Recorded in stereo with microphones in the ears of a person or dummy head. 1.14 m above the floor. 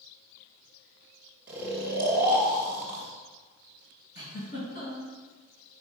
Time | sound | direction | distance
1.5 | snoring | 10° right (ahead or behind) | 1.2 m
4.2 | a giggle | 50° left (ahead or behind) | 3 m